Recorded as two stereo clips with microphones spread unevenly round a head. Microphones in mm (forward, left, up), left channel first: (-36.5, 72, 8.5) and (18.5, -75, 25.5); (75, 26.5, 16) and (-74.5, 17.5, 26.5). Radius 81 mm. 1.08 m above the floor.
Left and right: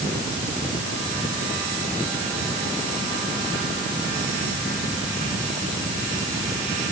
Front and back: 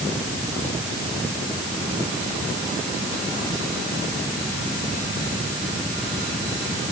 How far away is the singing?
I don't hear singing.